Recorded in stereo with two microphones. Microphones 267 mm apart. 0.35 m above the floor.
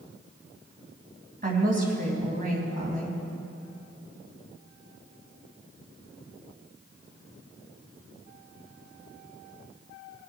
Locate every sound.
1.4 s a woman speaking: 30° right (ahead or behind), 2.5 m